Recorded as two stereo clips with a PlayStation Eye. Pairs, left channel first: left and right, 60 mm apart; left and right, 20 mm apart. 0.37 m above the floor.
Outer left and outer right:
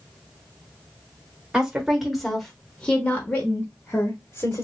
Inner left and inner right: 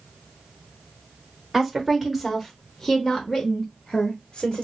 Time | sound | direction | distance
1.5 | a woman speaking | 15° right (ahead or behind) | 1.2 m